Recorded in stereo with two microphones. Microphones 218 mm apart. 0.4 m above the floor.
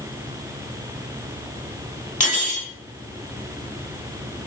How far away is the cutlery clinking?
About 1.0 m.